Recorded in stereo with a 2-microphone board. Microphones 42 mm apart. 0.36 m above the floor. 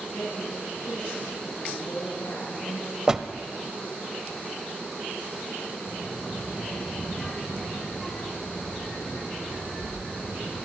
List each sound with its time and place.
0.1 s a woman speaking: 80° left, 9.5 m; by 3.0 s 70° left (ahead or behind), 9 m
3.1 s a door slam: 15° right (ahead or behind), 0.8 m
5.9 s a child speaking: 10° left (ahead or behind), 8 m